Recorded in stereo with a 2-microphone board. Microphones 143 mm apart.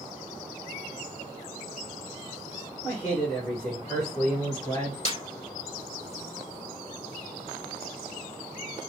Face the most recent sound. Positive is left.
turn(degrees=45)  # may be behind; listen again after turning